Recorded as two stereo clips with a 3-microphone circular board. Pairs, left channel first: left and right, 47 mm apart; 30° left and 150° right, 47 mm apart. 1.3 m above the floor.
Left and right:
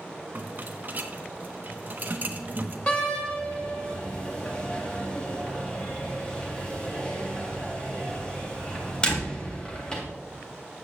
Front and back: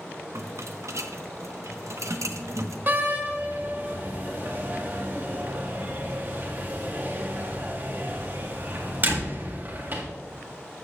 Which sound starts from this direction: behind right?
A rattle, at 0.3 s.